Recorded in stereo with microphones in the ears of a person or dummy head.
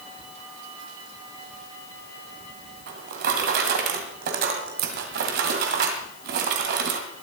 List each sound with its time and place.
2.9 s a drawer: 60° right (ahead or behind), 2 m